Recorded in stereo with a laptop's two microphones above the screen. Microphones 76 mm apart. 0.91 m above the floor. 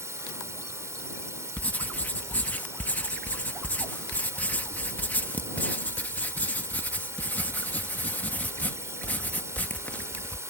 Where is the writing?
20° left (ahead or behind).